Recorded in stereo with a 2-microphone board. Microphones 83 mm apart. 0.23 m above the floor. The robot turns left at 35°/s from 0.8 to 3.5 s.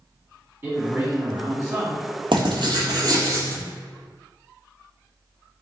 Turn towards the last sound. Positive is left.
turn(degrees=-140)